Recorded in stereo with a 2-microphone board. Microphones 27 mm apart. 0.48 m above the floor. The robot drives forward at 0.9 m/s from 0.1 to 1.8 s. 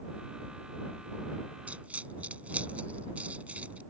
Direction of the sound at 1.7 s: 70° right (ahead or behind).